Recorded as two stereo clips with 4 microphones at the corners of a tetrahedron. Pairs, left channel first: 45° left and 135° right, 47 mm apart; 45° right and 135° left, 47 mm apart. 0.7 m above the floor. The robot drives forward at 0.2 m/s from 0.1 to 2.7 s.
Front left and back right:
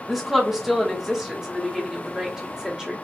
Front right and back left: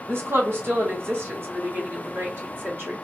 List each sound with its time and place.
0.1 s a woman speaking: 140° left, 1.2 m; by 2.9 s 155° left, 1.6 m